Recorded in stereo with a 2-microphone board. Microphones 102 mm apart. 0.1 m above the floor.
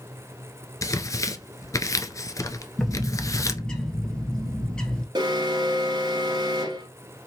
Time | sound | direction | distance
0.8 | tearing paper | 30° left (ahead or behind) | 0.5 m
2.8 | a bird | 10° left (ahead or behind) | 1.0 m
5.2 | an alarm | 45° right (ahead or behind) | 1.4 m